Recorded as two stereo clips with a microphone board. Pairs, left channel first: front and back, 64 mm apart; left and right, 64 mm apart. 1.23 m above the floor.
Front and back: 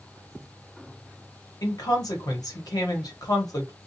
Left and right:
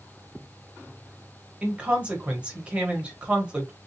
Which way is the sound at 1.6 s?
15° right.